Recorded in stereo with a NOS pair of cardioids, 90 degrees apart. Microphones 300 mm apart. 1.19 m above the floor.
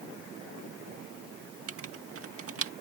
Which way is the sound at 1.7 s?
50° right.